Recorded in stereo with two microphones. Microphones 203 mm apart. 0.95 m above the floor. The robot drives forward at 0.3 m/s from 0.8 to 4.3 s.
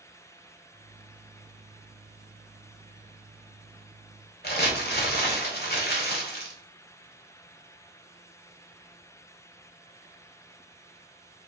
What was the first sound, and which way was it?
Crumpling, 55° left (ahead or behind).